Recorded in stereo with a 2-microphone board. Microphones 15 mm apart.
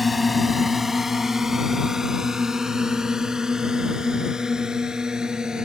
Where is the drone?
5° right (ahead or behind); by 5.7 s 55° right (ahead or behind).